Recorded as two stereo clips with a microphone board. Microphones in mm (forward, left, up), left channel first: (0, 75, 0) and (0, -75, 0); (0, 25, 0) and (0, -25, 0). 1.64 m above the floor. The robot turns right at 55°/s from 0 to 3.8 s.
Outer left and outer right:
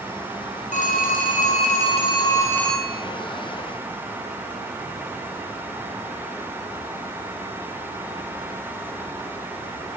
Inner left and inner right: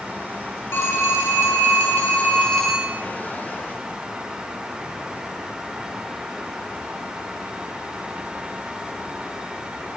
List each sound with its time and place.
0.7 s a phone ringing: 65° left, 2 m; by 3.0 s 170° right, 2 m